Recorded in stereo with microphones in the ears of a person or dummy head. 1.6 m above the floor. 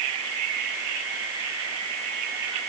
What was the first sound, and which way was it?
Only background noise.